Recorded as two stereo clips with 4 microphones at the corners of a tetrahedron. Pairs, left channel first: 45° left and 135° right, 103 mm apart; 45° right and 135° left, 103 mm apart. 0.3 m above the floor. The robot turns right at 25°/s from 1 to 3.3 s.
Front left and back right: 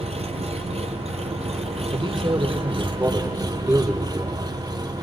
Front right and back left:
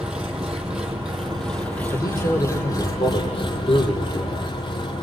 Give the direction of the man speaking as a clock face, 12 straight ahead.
3 o'clock.